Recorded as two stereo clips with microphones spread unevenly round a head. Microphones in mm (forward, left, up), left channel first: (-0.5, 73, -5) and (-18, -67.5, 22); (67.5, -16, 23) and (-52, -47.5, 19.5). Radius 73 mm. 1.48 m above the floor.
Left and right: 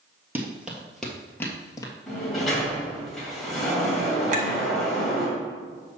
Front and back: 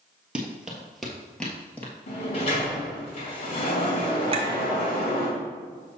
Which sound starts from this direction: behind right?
A clink, at 4.3 s.